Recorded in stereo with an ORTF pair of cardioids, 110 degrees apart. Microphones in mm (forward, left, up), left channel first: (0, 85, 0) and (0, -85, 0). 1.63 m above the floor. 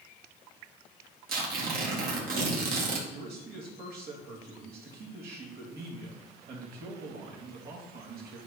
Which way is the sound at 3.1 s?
70° right.